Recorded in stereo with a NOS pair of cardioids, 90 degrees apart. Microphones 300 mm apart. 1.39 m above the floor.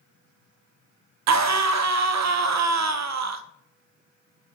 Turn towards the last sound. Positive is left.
turn(degrees=-60)